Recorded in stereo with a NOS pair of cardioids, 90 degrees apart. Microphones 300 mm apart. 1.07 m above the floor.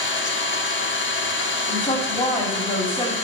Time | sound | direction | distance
0.0 | an engine running | 40° left | 1.4 m
1.7 | a woman speaking | 20° left | 3 m